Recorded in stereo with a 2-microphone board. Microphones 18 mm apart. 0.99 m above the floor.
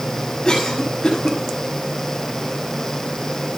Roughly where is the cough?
Left.